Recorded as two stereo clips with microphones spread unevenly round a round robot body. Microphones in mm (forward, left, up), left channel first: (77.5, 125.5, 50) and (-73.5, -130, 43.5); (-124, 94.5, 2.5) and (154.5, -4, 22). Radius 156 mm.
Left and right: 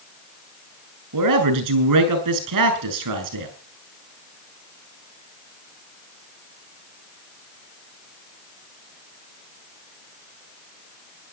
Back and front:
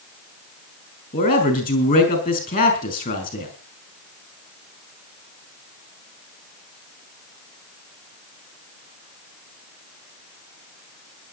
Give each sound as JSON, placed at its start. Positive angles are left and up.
{"t": 1.1, "sound": "a man speaking", "azimuth_deg": -135, "distance_m": 4.5}